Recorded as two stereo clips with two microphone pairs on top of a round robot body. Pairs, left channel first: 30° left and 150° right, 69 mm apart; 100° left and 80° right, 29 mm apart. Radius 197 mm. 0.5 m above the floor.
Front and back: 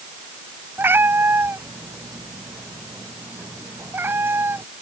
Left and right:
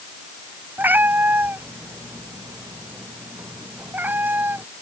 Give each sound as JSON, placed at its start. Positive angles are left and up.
{"t": 0.8, "sound": "a cat meowing", "azimuth_deg": -90}